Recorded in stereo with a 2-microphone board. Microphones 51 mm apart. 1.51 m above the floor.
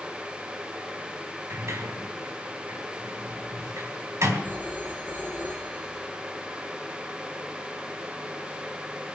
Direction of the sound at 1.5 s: 65° right (ahead or behind).